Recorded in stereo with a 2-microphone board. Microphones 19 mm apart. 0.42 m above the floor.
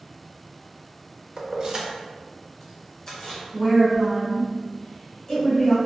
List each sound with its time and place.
1.4 s keys jangling: 45° right (ahead or behind), 0.6 m; by 3.4 s 30° left (ahead or behind), 1.1 m
3.5 s a woman speaking: 20° left (ahead or behind), 1.7 m